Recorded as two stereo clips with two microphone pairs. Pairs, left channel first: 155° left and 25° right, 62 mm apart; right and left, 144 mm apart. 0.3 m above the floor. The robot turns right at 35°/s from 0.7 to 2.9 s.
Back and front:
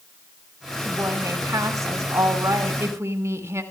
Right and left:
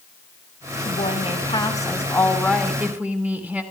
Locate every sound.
0.8 s a woman speaking: 60° right, 3 m; by 3.6 s 15° left, 3 m